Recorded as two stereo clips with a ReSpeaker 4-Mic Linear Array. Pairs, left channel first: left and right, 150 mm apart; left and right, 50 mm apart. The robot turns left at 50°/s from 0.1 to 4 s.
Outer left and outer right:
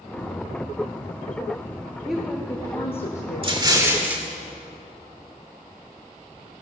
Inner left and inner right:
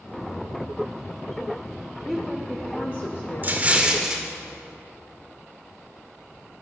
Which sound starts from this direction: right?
An explosion, at 3.4 s.